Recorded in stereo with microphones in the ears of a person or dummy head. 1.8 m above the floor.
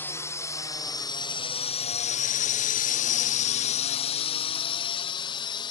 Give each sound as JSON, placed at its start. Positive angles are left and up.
{"t": 0.0, "sound": "a drone", "side_deg": 15}